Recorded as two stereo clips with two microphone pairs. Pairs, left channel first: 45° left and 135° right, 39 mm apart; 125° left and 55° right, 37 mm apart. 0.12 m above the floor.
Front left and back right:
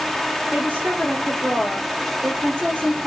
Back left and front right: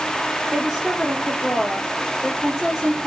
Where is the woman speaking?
135° right, 2.5 m.